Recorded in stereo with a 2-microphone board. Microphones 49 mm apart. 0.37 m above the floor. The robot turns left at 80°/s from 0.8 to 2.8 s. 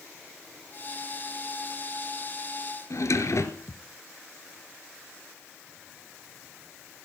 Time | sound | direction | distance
2.9 | a drawer | 70° left (ahead or behind) | 1.7 m